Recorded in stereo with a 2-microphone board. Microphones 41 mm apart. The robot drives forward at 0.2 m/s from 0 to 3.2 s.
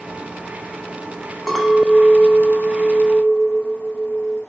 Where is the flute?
I don't hear a flute.